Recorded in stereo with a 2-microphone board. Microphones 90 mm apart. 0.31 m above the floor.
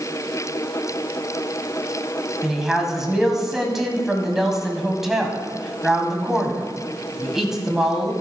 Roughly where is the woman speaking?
Centre.